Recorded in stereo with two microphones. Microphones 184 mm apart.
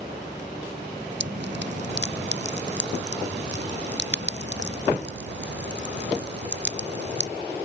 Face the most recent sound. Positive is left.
turn(degrees=-75)  # may be behind; listen again after turning